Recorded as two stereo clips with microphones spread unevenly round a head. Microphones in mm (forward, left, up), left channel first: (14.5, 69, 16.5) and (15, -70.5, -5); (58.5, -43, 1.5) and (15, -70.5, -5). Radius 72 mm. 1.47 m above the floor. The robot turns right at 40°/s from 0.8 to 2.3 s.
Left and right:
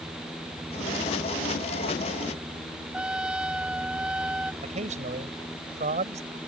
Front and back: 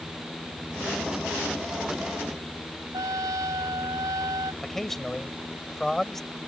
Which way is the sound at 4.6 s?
50° right.